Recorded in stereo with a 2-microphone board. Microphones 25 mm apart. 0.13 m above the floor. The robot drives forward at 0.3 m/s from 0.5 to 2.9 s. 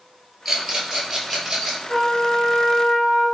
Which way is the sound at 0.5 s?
10° right (ahead or behind).